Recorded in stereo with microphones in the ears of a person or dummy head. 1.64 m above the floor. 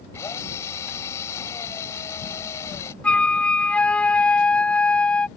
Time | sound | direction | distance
0.1 | a drill | 20° left (ahead or behind) | ?
3.0 | a flute | 5° left (ahead or behind) | ?